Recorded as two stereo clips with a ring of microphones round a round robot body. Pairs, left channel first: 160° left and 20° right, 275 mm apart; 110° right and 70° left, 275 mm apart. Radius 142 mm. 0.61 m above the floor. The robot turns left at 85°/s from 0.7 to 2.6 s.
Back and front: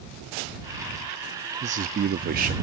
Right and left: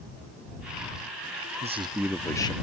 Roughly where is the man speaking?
Ahead left.